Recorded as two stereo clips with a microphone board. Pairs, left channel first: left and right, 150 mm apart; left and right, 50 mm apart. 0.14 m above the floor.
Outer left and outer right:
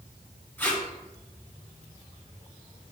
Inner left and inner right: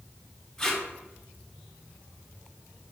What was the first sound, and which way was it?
Tape being pulled, 15° left (ahead or behind).